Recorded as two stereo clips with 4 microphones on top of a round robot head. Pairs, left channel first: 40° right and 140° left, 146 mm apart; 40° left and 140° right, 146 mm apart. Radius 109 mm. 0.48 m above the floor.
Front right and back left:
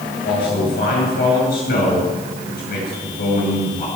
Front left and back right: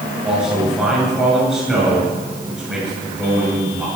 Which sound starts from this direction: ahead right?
A man speaking, at 0.2 s.